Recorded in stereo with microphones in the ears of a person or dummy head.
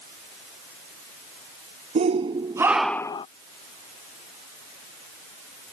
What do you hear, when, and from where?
1.9 s a shout: 35° right (ahead or behind); by 3.3 s 30° left (ahead or behind)